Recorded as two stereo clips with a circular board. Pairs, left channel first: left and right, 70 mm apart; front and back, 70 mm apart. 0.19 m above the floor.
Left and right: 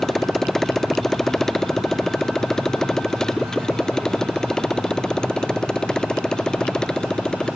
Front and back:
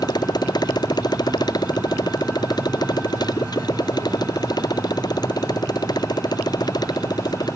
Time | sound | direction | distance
0.0 | a motorcycle | 5° left | ?